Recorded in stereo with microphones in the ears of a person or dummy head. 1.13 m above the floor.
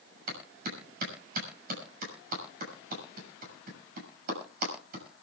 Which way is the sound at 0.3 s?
55° right (ahead or behind).